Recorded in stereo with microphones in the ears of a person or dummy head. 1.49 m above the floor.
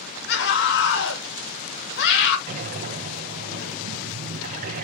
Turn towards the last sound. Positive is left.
turn(degrees=-40)  # may be behind; listen again after turning